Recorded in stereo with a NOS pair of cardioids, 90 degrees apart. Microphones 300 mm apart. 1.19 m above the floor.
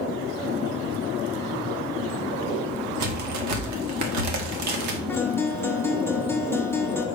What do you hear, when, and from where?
3.0 s a crack: 65° right, 1.6 m
5.1 s a guitar: 10° left, 1.2 m